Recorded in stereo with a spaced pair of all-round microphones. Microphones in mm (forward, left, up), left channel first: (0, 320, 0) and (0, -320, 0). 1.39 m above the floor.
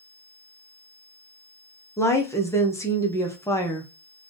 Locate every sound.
2.0 s a woman speaking: 5° left (ahead or behind), 0.8 m